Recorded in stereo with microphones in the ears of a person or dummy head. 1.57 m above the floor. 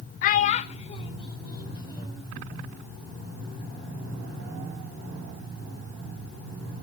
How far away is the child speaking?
About 0.8 m.